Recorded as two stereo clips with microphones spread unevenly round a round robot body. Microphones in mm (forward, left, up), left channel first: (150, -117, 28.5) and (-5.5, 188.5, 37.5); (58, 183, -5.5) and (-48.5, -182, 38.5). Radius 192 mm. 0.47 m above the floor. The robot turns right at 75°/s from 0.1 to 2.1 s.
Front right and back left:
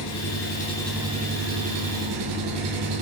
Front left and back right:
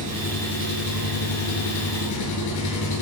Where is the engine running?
35° right, 2.5 m; by 3.0 s 115° left, 2.5 m.